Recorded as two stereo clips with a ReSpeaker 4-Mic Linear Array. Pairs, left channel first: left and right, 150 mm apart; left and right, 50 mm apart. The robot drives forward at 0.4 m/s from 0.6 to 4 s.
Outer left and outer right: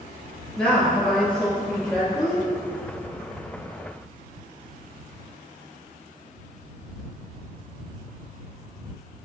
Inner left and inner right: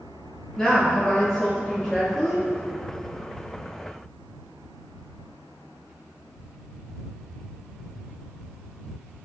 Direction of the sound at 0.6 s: 5° left (ahead or behind).